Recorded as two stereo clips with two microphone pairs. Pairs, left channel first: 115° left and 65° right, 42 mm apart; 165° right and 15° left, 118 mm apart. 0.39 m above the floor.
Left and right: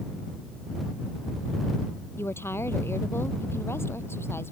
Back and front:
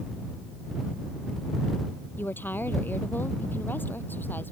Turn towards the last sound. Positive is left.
turn(degrees=120)